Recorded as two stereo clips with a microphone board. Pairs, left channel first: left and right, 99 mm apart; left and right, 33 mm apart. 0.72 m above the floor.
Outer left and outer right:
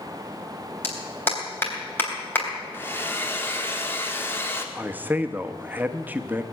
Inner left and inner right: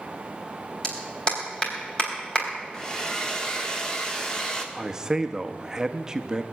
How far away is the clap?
About 3.5 m.